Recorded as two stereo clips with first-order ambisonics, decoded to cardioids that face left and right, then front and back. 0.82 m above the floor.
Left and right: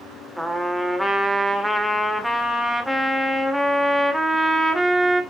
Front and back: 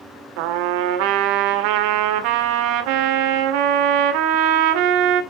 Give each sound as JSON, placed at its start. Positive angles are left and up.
{"t": 0.4, "sound": "a trumpet", "azimuth_deg": -175, "distance_m": 1.7}